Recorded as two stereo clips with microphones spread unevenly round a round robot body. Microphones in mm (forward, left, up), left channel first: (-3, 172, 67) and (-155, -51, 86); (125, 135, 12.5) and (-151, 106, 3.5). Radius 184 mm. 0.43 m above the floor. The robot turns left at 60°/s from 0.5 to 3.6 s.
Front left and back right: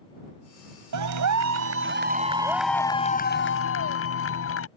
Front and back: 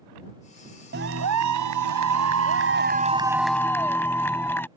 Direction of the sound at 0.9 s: 110° right.